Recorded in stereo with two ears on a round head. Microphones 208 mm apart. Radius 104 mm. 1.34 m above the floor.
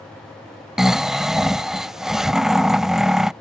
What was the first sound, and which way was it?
Snoring, centre (ahead or behind).